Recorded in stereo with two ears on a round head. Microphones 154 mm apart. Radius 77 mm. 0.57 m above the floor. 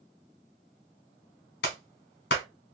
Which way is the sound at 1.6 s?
65° left (ahead or behind).